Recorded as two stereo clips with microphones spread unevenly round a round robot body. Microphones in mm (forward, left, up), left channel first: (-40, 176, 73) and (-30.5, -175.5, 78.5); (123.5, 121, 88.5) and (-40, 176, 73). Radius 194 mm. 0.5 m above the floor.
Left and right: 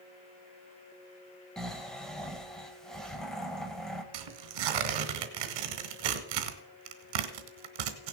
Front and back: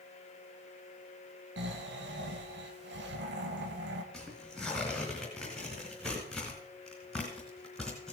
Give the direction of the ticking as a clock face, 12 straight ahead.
I don't hear ticking.